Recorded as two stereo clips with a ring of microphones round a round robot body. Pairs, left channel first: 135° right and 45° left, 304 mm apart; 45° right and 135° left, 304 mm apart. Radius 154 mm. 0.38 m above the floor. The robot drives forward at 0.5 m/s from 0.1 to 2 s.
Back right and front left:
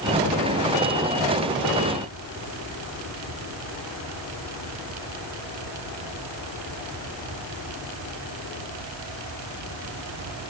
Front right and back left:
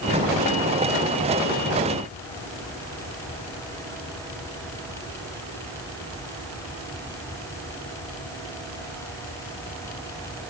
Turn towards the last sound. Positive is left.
No sound to turn to.